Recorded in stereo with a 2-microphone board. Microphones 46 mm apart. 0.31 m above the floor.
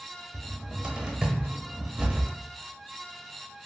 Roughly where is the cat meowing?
I don't hear a cat meowing.